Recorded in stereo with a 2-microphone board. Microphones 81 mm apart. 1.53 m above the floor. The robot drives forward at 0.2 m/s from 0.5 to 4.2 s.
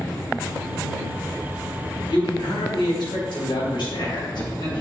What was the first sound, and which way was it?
A man speaking, 90° left.